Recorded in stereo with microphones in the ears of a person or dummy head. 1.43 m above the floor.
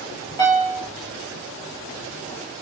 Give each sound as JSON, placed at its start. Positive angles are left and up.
{"t": 0.4, "sound": "a piano", "side_deg": 20, "distance_m": 1.8}